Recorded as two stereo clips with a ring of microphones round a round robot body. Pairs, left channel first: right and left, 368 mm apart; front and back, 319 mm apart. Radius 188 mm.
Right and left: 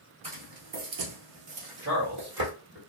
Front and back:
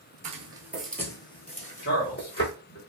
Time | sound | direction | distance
0.2 | footsteps | 145° left | 0.9 m
1.8 | a man speaking | 50° left | 1.8 m